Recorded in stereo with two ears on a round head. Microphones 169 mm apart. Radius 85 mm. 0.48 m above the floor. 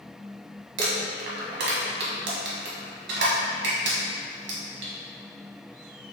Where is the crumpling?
65° right (ahead or behind), 1.2 m.